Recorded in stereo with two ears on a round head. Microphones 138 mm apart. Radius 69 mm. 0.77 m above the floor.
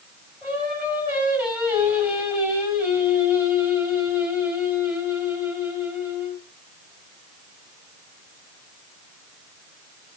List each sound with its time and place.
0.4 s singing: 10° right (ahead or behind), 5.5 m